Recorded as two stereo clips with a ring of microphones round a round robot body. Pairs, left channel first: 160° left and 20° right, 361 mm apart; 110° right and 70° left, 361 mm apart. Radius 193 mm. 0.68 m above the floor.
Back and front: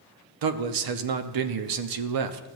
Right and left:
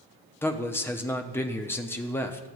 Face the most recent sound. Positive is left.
turn(degrees=-30)